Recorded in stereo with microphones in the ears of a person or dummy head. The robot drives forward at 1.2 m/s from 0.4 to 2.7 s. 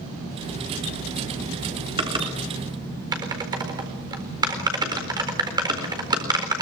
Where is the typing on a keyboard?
30° right (ahead or behind), 3 m; by 6.6 s 20° right (ahead or behind), 4 m.